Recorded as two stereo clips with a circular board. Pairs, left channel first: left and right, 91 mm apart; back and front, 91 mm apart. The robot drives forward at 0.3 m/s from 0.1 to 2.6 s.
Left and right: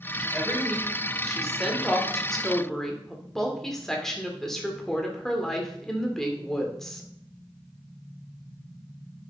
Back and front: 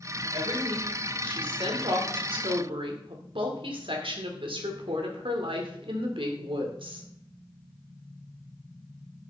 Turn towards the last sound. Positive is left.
turn(degrees=5)